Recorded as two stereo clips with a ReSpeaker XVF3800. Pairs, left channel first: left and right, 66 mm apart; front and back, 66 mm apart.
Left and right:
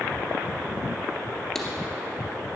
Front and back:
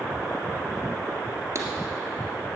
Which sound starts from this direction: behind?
Writing, at 1.6 s.